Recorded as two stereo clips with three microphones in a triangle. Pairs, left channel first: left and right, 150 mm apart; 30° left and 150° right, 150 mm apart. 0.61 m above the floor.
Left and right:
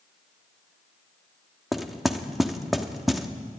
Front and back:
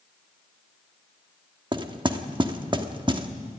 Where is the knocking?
Straight behind, 1.1 m.